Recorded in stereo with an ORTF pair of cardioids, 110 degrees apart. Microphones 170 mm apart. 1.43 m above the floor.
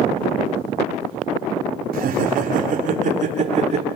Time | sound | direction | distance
1.9 | laughter | 60° right | 4 m